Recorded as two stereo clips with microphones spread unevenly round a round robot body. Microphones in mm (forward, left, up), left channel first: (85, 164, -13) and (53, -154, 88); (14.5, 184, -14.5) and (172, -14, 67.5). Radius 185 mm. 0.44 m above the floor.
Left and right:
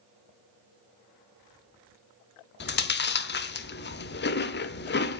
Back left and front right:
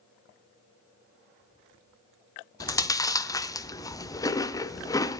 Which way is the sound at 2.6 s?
75° left.